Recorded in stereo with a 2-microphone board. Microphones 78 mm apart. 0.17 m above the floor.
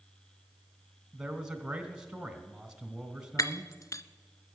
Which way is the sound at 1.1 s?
10° right (ahead or behind).